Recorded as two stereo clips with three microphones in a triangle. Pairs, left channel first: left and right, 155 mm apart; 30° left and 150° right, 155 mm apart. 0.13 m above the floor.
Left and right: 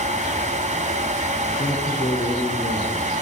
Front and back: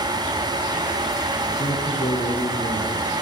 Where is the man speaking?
55° left, 7 m; by 3.1 s 65° left, 5.5 m.